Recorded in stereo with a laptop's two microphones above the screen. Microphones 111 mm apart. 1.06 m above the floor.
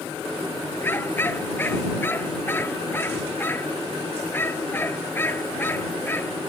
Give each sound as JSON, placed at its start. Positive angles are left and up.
{"t": 0.8, "sound": "a dog barking", "side_deg": 20}